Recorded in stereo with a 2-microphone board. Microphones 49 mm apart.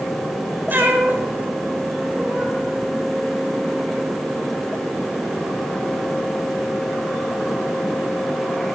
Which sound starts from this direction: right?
A cat meowing, at 0.7 s.